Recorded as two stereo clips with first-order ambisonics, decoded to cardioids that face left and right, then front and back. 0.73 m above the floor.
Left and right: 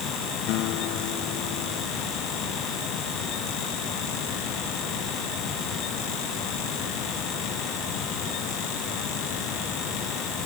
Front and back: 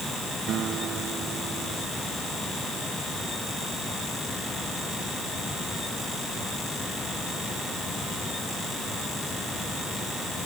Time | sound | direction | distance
0.5 | a guitar | 120° left | ?